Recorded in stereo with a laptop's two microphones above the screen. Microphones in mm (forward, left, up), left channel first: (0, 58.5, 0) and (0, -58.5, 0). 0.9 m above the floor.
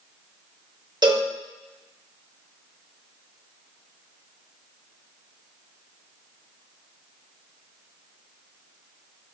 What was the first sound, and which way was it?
A cowbell, 40° right (ahead or behind).